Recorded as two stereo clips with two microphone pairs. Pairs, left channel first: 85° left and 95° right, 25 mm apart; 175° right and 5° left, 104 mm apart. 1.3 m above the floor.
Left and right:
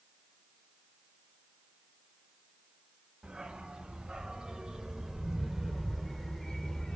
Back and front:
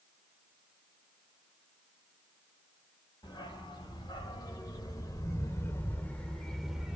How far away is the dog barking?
About 2 m.